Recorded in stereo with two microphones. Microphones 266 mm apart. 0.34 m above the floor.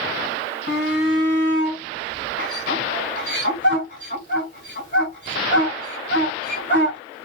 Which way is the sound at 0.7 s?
40° left (ahead or behind).